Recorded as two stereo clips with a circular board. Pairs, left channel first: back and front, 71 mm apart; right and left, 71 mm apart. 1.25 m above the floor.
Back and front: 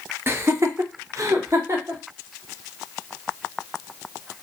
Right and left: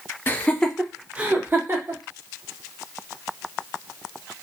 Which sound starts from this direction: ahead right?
Laughter, at 0.3 s.